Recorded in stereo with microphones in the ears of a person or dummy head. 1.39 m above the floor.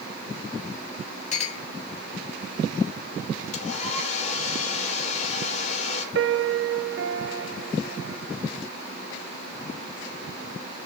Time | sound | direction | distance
1.3 | a clink | 40° left (ahead or behind) | 1.4 m
3.5 | a hair dryer | 45° left (ahead or behind) | 5 m
6.2 | a piano | 65° right (ahead or behind) | 0.8 m